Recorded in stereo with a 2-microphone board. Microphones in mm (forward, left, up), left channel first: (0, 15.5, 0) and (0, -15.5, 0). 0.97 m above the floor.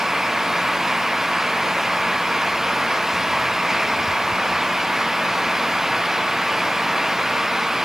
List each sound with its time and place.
Only background noise.